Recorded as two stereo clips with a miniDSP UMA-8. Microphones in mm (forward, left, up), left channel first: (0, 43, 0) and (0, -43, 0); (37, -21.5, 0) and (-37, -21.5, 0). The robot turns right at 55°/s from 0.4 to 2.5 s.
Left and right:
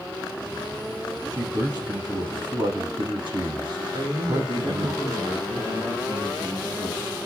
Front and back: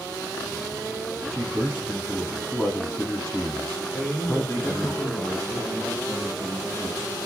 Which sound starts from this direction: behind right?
A man speaking, at 1.3 s.